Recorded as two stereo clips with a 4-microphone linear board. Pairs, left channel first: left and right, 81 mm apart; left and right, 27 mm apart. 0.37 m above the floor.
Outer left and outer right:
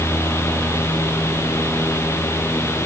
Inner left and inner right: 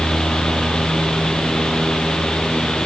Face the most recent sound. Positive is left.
No sound to turn to.